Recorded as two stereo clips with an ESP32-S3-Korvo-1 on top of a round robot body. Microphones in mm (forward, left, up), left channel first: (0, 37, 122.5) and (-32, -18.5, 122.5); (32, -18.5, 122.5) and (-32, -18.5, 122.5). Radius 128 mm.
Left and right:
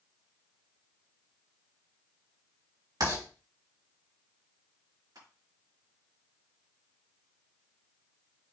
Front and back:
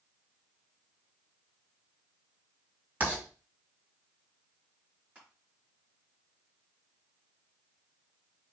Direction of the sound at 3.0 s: 120° right.